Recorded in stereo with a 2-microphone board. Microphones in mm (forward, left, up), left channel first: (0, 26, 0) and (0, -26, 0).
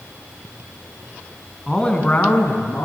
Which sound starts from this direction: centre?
A man speaking, at 1.7 s.